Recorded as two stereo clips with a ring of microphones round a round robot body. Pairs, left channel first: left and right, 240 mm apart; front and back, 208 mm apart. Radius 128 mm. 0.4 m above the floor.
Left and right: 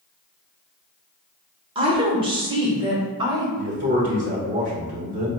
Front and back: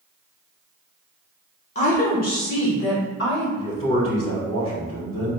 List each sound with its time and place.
1.8 s a woman speaking: 35° right, 0.9 m; by 3.5 s 20° right, 1.6 m
3.6 s a man speaking: 45° right, 1.6 m